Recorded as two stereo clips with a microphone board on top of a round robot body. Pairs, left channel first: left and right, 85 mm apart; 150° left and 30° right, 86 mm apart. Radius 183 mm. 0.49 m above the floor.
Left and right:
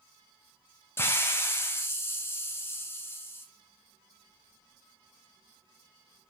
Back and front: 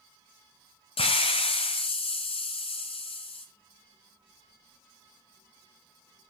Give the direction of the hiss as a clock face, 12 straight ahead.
7 o'clock.